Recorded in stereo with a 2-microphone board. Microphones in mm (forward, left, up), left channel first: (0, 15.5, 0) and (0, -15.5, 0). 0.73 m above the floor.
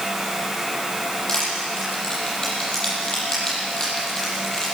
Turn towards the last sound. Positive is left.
turn(degrees=25)  # may be behind; listen again after turning